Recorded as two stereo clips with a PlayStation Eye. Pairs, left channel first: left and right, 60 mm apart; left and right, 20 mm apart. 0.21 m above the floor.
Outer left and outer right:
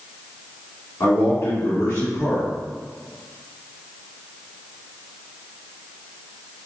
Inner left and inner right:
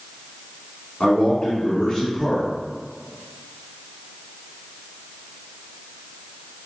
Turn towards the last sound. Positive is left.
turn(degrees=55)  # may be behind; listen again after turning